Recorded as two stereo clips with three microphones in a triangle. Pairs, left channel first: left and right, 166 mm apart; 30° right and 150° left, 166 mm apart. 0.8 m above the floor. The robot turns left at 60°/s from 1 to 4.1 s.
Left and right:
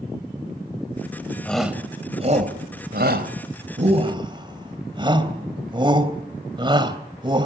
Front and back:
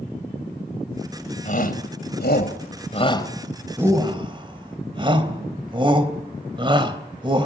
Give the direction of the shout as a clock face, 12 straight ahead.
12 o'clock.